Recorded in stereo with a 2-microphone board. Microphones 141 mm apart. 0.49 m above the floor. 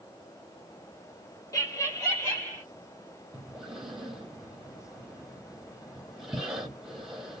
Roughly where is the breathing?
Centre.